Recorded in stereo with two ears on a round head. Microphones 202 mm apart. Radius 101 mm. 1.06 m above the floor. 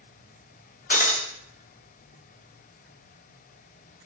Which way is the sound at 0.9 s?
40° left (ahead or behind).